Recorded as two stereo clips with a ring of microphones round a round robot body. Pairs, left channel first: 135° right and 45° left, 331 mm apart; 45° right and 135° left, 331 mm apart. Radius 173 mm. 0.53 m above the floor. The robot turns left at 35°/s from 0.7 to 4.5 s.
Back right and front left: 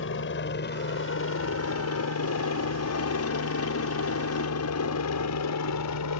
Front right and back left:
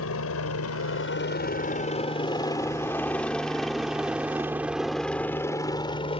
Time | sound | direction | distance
0.0 | a helicopter | 85° right | ?